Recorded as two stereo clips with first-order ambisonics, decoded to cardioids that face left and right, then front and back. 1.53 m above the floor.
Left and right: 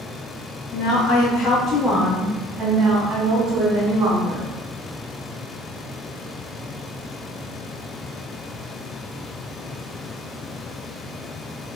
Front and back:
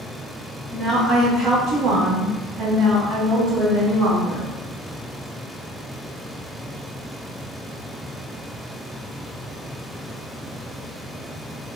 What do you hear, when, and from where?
0.7 s a woman speaking: 90° left, 1.0 m; by 4.5 s 140° right, 2 m